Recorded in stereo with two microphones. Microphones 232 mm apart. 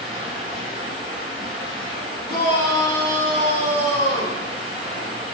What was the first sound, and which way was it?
Running water, 25° right (ahead or behind).